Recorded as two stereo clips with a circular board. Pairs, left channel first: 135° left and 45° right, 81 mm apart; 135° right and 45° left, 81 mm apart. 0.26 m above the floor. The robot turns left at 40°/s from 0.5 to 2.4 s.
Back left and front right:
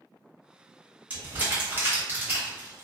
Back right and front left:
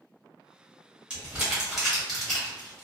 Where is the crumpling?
10° right, 1.2 m; by 2.8 s 65° right, 1.2 m.